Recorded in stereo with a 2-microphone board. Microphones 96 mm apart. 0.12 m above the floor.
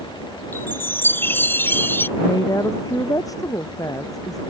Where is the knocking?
I don't hear knocking.